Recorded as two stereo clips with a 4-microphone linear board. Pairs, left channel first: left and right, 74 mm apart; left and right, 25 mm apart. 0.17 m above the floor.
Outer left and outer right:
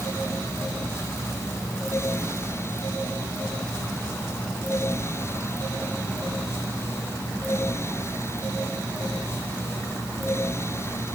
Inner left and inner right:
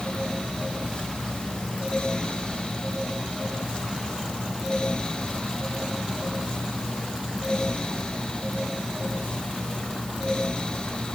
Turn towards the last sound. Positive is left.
No sound to turn to.